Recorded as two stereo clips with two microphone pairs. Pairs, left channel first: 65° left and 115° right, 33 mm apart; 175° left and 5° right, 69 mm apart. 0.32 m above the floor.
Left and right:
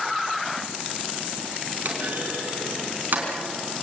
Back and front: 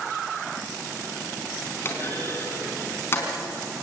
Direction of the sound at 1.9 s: 135° right.